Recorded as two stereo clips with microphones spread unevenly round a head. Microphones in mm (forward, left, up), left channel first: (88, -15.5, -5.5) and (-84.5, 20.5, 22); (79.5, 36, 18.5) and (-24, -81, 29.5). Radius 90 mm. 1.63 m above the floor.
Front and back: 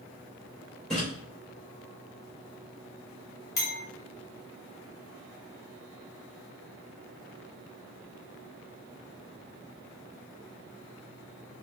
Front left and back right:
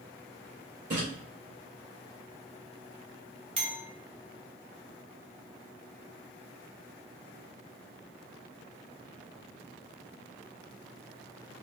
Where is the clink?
85° right, 1.7 m.